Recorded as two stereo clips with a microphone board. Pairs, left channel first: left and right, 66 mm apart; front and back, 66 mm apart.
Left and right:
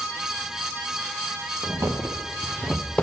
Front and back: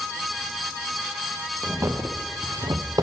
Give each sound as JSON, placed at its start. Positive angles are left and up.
{"t": 1.6, "sound": "footsteps", "azimuth_deg": -130, "distance_m": 1.5}